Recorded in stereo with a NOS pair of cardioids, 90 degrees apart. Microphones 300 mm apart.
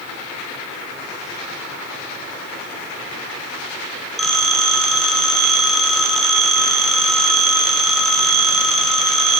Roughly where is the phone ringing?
Ahead.